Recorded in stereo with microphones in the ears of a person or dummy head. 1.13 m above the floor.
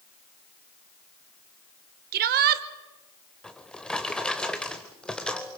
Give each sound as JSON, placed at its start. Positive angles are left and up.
{"t": 2.1, "sound": "a shout", "side_deg": -50, "distance_m": 1.1}
{"t": 3.4, "sound": "a drawer", "side_deg": 5, "distance_m": 0.9}